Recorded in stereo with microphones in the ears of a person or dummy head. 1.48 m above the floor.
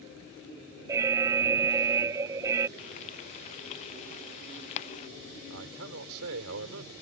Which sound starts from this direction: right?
A man speaking, at 5.5 s.